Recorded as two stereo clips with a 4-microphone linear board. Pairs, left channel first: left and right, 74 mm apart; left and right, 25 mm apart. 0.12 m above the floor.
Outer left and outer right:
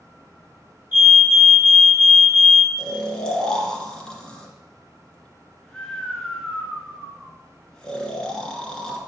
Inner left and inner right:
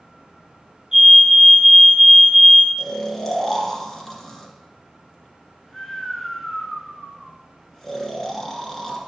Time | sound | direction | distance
0.9 | a fire alarm | 25° right (ahead or behind) | 3 m
2.8 | snoring | 10° left (ahead or behind) | 1.6 m